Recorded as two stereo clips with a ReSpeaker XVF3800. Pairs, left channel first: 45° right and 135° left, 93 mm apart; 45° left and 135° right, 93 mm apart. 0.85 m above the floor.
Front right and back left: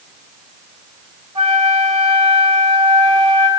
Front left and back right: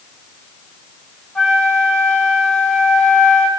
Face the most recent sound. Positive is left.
turn(degrees=125)